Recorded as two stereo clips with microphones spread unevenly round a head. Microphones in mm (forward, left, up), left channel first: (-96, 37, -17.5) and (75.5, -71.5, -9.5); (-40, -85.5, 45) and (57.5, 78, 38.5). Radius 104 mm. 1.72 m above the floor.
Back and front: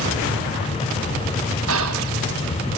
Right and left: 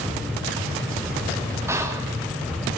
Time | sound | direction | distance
1.7 | whispering | 20° right | 1.9 m